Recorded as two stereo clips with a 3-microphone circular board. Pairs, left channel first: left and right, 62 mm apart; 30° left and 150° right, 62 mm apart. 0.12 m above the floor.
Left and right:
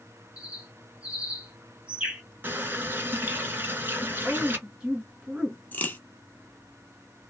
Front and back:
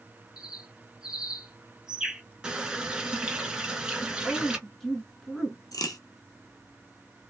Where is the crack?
30° left, 0.9 m.